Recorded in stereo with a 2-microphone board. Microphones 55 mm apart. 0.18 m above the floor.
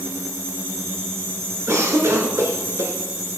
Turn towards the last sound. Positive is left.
turn(degrees=-55)  # may be behind; listen again after turning